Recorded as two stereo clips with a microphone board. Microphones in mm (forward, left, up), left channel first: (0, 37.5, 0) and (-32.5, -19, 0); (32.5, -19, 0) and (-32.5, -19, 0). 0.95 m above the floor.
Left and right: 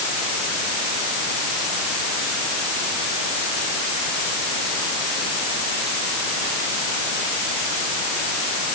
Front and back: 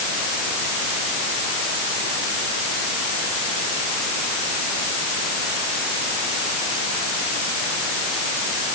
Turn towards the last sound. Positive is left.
No sound to turn to.